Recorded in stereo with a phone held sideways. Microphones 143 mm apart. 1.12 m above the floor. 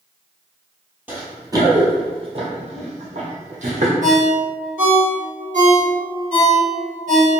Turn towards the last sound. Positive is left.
turn(degrees=-65)  # may be behind; listen again after turning